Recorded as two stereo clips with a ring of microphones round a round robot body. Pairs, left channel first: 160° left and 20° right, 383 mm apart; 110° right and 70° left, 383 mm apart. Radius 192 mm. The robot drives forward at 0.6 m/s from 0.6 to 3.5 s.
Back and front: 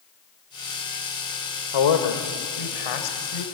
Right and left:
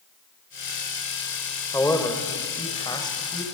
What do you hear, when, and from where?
1.7 s a man speaking: 165° left, 2.5 m; by 3.4 s 170° left, 3.5 m